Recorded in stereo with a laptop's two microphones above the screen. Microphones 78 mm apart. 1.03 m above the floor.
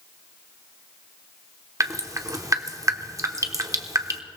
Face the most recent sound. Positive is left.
turn(degrees=-40)  # may be behind; listen again after turning